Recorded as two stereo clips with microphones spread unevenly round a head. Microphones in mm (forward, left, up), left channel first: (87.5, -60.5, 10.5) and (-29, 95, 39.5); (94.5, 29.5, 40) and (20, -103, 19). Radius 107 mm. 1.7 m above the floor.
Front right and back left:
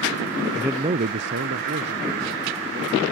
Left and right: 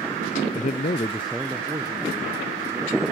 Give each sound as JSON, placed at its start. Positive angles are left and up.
{"t": 0.6, "sound": "a man speaking", "azimuth_deg": 45, "distance_m": 0.7}